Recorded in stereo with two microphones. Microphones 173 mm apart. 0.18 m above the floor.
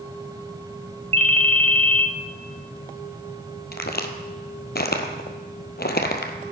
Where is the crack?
70° left (ahead or behind), 0.9 m.